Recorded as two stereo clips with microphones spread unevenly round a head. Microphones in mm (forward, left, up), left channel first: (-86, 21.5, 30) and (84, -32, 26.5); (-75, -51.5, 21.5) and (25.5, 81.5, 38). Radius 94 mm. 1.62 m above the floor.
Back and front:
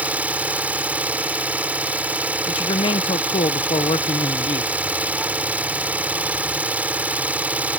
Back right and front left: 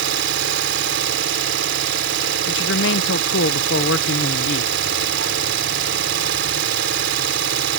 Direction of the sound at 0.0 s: 65° left.